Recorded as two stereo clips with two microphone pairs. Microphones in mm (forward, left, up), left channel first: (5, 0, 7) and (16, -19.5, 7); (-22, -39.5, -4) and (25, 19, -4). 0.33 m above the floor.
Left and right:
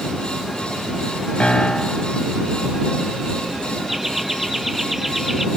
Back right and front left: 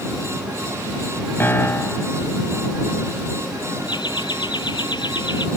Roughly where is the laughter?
Behind right.